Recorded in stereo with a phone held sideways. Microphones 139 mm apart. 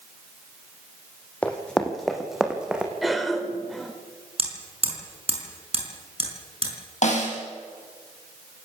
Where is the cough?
Centre (ahead or behind), 4 m.